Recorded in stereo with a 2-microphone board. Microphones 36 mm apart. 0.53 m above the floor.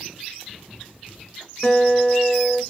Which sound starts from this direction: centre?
A guitar, at 1.6 s.